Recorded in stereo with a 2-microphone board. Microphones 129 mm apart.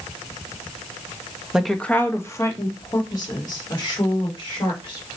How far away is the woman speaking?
About 0.5 m.